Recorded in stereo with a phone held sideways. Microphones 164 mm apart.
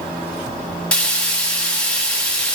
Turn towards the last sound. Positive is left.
turn(degrees=5)  # may be behind; listen again after turning